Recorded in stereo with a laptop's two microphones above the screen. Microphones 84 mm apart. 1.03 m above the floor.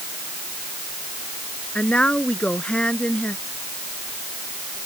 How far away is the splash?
I don't hear a splash.